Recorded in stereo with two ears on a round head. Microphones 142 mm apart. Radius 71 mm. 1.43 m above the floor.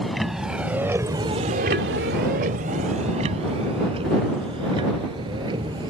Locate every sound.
0.0 s a vehicle: centre (ahead or behind); by 5.9 s 30° right (ahead or behind)